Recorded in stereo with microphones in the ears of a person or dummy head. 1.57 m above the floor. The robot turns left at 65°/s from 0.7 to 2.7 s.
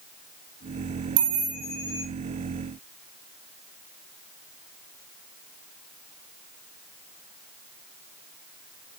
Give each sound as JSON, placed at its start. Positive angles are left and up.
{"t": 1.2, "sound": "a chime", "azimuth_deg": -100, "distance_m": 4.5}